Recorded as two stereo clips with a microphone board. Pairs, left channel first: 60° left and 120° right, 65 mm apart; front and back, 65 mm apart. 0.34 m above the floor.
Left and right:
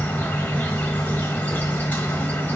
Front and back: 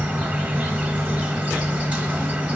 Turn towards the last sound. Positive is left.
turn(degrees=115)